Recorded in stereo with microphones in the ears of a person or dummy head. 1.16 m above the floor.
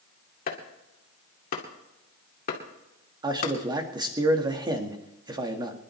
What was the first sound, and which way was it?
Chopping, 50° left (ahead or behind).